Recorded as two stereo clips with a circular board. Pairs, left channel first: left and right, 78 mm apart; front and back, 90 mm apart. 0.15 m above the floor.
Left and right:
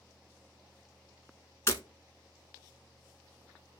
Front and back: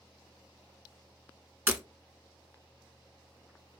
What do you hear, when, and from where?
1.7 s breaking glass: 125° left, 0.6 m